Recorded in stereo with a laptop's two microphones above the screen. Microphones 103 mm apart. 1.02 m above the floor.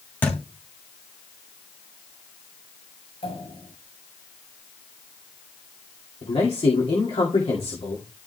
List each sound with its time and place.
0.2 s a thud: 20° left (ahead or behind), 2.5 m
3.2 s a pop: 75° left (ahead or behind), 8 m
6.2 s a man speaking: 80° left, 2.5 m